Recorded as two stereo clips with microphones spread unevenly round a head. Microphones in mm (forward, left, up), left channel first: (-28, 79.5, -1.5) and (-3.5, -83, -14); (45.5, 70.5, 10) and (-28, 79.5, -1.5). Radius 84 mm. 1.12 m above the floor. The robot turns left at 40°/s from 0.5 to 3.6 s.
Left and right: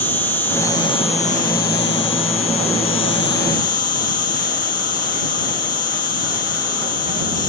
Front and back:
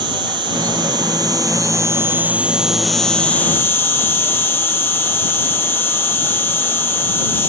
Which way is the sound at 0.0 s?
175° left.